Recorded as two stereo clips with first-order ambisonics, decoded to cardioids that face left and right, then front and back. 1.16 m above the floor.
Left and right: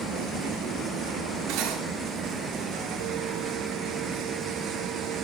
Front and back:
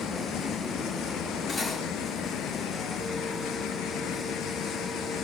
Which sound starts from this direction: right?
Cutlery clinking, at 1.5 s.